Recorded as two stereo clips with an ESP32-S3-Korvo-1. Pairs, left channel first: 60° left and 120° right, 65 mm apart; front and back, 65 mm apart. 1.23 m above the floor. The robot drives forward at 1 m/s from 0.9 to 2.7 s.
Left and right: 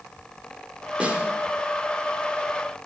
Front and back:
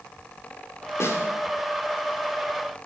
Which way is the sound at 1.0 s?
50° right.